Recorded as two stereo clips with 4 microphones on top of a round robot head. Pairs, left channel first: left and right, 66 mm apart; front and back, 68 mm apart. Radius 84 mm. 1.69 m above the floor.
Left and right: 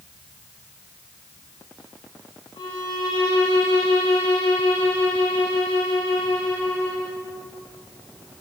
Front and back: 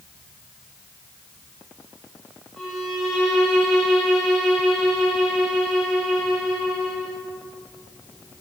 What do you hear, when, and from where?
2.6 s a violin: 95° left, 3 m